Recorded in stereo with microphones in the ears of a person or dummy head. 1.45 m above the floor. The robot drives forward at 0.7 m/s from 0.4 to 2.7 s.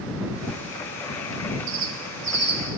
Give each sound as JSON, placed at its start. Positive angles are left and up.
{"t": 1.7, "sound": "a bird", "side_deg": -65, "distance_m": 0.7}